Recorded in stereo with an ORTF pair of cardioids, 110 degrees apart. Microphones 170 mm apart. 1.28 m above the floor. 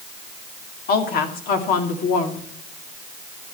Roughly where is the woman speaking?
Ahead left.